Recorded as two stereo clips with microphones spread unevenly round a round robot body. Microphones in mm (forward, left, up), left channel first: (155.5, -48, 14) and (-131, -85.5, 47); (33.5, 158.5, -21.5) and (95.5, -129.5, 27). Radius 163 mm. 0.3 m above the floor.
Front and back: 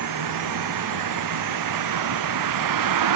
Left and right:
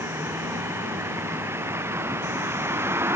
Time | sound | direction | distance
0.0 | a vehicle | 160° right | ?